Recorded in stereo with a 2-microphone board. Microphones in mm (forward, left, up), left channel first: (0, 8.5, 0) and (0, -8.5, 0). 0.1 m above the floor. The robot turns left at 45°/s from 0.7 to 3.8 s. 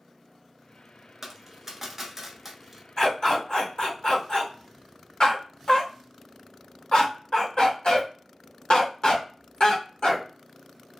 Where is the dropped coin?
20° right (ahead or behind), 0.7 m; by 2.8 s 10° right (ahead or behind), 0.7 m.